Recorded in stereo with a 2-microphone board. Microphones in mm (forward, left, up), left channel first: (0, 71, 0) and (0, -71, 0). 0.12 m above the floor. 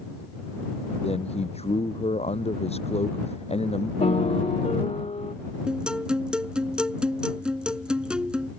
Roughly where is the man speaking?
Left.